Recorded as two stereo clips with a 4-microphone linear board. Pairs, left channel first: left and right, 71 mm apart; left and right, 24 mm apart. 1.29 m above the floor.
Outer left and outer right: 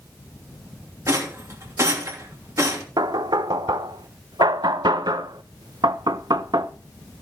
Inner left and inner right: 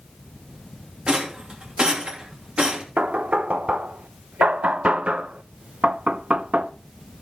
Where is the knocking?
75° right (ahead or behind), 0.7 m.